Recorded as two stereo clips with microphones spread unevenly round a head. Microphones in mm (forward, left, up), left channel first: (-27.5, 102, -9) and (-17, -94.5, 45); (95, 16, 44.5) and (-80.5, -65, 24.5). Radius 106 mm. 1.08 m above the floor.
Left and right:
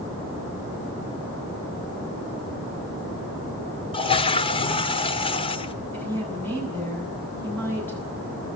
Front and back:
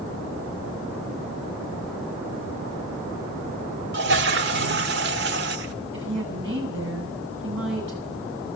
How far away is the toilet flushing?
About 1.3 m.